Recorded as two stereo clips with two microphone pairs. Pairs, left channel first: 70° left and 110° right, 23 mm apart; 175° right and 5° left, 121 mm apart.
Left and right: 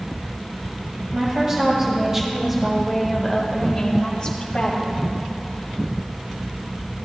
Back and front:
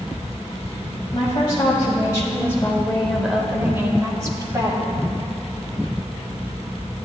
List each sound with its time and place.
1.1 s a woman speaking: 140° right, 1.8 m; by 5.0 s 45° left, 1.9 m